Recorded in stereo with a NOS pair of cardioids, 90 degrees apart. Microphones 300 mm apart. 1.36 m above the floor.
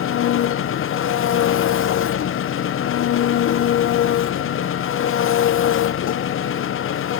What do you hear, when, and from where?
0.0 s an engine running: 45° left, 0.7 m